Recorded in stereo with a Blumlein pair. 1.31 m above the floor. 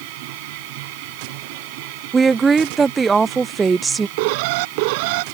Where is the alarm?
45° right.